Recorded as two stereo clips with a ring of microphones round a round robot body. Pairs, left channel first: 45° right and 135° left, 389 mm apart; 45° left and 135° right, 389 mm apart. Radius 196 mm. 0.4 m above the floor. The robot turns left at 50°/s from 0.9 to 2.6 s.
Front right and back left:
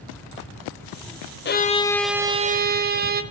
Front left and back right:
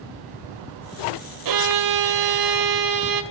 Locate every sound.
1.4 s a violin: 105° right, 1.7 m; by 3.2 s 160° right, 1.7 m